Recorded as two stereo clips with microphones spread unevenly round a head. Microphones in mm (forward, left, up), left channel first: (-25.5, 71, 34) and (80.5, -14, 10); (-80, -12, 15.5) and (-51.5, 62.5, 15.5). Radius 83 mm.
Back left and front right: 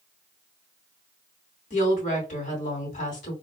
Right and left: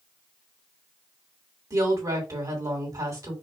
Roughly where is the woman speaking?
Left.